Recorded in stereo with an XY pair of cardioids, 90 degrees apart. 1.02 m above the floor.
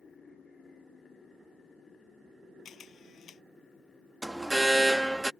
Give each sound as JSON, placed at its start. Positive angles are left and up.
{"t": 2.6, "sound": "a camera shutter", "azimuth_deg": 65}
{"t": 4.2, "sound": "an alarm", "azimuth_deg": -5}